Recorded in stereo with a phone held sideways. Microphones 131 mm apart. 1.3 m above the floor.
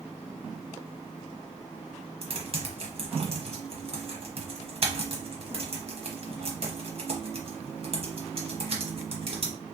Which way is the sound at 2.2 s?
50° right (ahead or behind).